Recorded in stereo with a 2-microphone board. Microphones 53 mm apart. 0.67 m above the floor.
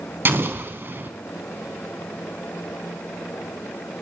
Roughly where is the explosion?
Right.